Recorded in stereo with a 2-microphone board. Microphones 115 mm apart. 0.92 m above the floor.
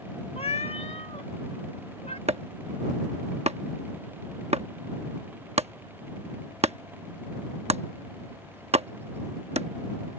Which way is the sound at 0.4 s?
80° left.